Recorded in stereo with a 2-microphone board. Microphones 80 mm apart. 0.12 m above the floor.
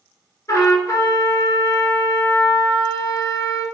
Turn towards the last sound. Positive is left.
turn(degrees=40)  # may be behind; listen again after turning